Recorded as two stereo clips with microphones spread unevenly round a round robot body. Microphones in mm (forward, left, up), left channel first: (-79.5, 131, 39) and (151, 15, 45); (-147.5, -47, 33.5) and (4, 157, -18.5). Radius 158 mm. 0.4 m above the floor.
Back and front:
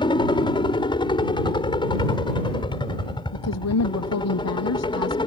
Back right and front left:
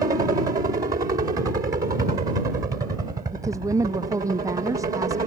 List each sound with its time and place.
0.0 s a helicopter: 95° left
3.3 s a woman speaking: 130° left